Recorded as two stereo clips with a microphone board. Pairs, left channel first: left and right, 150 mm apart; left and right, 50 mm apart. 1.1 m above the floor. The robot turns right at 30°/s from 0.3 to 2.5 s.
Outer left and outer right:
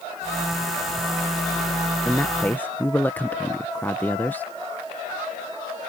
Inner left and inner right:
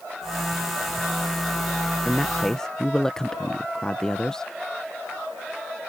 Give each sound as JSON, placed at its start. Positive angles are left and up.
{"t": 2.0, "sound": "a man speaking", "side_deg": 5}